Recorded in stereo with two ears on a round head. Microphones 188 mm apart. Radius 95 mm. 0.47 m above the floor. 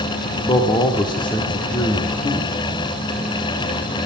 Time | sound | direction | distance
0.4 | a man speaking | 25° left (ahead or behind) | 0.8 m